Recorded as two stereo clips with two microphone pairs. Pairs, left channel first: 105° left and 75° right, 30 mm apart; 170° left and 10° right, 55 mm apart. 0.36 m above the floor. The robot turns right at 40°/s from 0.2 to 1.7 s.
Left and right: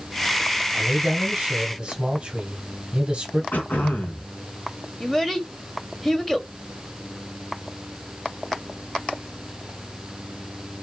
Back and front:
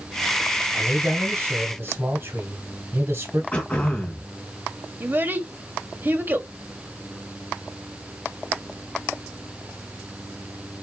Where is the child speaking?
30° left, 1.1 m.